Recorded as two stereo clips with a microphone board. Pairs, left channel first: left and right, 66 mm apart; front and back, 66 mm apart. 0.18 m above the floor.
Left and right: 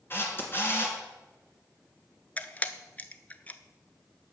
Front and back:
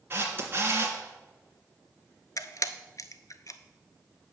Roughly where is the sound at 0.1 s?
Behind left.